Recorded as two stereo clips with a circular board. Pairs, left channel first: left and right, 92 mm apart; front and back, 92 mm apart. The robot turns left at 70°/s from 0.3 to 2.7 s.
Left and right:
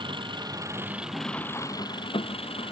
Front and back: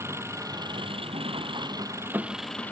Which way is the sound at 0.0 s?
120° right.